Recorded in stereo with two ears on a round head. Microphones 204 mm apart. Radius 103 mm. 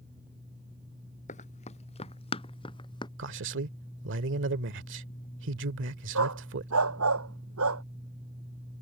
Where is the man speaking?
60° right (ahead or behind).